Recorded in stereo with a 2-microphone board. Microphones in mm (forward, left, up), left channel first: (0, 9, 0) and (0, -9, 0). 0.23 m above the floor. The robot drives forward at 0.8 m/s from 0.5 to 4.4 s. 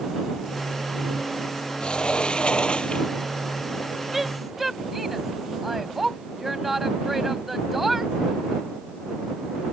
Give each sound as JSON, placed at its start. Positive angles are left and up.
{"t": 1.8, "sound": "a sliding door", "side_deg": 60}
{"t": 4.1, "sound": "a woman speaking", "side_deg": -15}